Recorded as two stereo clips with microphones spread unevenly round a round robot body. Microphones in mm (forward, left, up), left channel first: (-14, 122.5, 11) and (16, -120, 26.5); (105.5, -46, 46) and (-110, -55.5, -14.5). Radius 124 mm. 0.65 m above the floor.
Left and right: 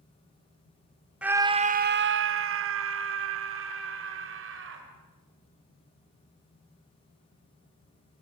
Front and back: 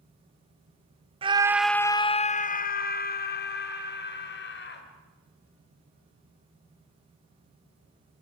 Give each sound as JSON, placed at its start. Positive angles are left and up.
{"t": 1.2, "sound": "a scream", "azimuth_deg": -170, "distance_m": 0.8}